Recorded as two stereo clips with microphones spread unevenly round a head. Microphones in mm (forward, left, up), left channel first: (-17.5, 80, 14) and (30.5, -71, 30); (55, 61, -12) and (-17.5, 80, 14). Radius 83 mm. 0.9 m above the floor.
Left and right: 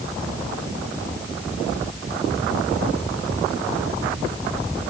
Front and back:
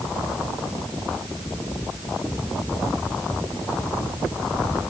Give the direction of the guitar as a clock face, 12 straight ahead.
I don't hear a guitar.